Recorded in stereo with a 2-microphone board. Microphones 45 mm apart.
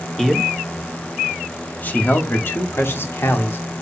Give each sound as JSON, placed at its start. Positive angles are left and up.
{"t": 0.2, "sound": "a man speaking", "side_deg": 5, "distance_m": 1.6}